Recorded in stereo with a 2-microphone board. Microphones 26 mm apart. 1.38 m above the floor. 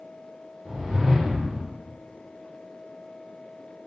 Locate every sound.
0.7 s a whoosh: 30° right (ahead or behind), 1.0 m